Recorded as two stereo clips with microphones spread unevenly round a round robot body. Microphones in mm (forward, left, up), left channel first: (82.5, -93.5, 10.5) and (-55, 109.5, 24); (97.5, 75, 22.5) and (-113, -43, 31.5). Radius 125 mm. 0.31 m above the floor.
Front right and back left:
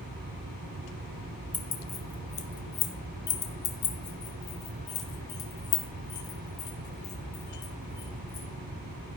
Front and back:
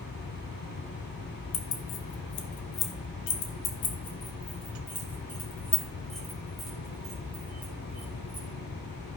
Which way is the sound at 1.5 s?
25° left.